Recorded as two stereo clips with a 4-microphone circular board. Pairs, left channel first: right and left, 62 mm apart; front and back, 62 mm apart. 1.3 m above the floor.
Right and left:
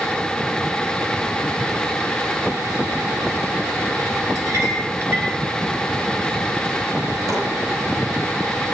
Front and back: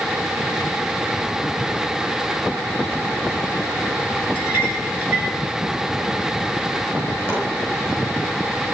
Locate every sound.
4.3 s a clink: 115° left, 5.5 m
7.3 s chopping: 115° left, 9 m